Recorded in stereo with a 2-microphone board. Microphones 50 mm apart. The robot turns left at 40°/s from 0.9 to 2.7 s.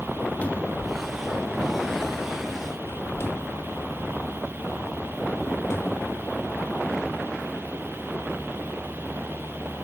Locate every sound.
0.4 s a cupboard door: 30° left (ahead or behind), 1.8 m; by 6.6 s 60° left (ahead or behind), 1.8 m